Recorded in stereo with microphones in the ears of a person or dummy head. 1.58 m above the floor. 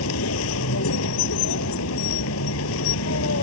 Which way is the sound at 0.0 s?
80° left.